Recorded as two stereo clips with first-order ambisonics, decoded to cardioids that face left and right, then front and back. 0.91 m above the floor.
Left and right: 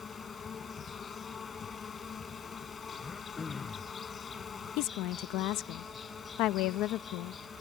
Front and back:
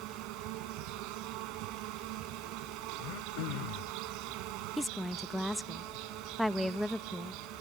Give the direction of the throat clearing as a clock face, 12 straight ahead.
11 o'clock.